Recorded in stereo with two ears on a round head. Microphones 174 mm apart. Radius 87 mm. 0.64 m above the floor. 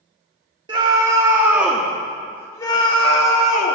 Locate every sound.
0.7 s a scream: 25° right (ahead or behind), 1.5 m; by 3.8 s 45° left (ahead or behind), 1.4 m